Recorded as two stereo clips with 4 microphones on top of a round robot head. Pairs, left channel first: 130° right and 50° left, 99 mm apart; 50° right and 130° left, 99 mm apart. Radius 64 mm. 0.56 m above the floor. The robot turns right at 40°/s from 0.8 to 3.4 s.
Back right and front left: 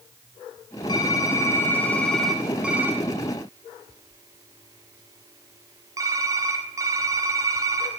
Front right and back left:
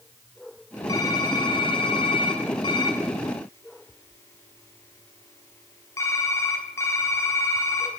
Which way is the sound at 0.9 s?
95° right.